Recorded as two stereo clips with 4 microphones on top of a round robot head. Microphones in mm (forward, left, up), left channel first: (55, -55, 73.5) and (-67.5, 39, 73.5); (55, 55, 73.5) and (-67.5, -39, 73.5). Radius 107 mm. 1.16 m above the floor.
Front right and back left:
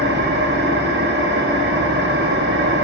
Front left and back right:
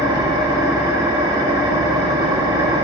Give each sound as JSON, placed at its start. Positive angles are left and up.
{"t": 0.0, "sound": "an engine running", "azimuth_deg": 150, "distance_m": 1.4}